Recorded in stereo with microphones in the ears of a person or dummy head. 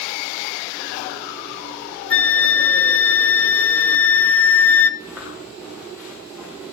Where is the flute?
5° left (ahead or behind), 0.7 m.